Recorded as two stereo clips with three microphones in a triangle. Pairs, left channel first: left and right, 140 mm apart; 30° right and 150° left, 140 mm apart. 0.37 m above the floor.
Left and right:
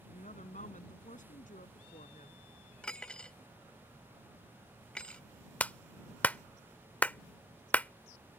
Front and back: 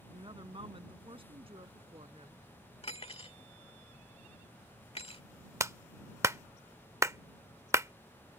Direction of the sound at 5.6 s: 145° left.